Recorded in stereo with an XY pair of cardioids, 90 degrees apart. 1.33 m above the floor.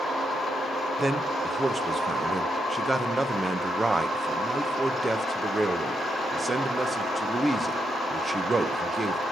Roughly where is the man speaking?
Ahead right.